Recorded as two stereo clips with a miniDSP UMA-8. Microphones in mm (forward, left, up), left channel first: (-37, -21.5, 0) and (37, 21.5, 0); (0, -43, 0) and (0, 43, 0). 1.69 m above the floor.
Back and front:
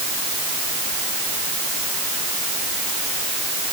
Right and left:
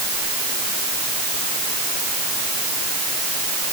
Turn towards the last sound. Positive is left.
No sound to turn to.